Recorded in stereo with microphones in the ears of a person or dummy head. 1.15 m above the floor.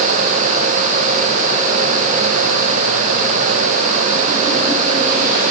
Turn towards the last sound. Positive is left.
No sound to turn to.